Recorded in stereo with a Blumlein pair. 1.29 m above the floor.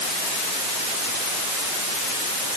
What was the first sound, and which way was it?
Only background noise.